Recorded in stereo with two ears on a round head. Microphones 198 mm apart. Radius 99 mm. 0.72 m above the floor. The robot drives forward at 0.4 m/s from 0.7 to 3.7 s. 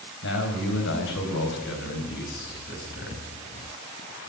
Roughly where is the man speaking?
Left.